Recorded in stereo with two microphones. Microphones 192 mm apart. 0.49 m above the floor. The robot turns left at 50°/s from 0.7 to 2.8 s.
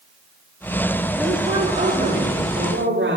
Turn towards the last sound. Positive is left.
turn(degrees=-80)